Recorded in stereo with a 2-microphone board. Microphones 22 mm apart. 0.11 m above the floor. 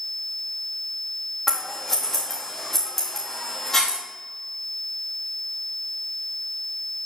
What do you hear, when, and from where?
1.5 s scissors: 15° left (ahead or behind), 3.5 m